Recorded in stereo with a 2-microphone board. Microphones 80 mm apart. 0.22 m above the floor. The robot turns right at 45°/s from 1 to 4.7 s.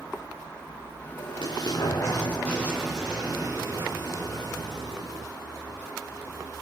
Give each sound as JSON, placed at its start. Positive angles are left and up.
{"t": 1.2, "sound": "an explosion", "azimuth_deg": 105, "distance_m": 7.5}